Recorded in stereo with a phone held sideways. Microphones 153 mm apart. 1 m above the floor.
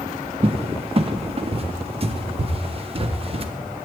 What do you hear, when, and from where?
0.4 s a cupboard door: 40° right (ahead or behind), 0.5 m